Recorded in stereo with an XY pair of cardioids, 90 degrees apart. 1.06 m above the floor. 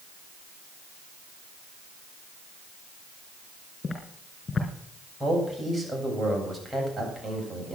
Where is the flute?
No flute in this recording.